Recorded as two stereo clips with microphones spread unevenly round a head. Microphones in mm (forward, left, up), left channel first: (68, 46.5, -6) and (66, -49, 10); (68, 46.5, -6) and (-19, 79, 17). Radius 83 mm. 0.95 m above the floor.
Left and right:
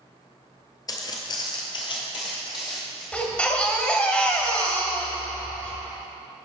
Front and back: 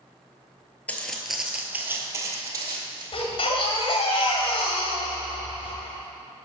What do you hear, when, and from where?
0.9 s footsteps: 65° left, 1.0 m; by 3.0 s 145° left, 1.8 m
3.1 s a baby crying: 10° left, 2 m